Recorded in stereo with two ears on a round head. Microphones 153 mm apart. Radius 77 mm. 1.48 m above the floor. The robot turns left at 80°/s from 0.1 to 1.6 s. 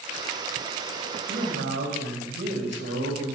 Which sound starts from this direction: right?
A man speaking, at 1.3 s.